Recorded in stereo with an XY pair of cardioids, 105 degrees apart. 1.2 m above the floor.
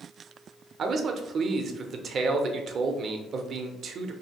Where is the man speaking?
55° right, 0.5 m.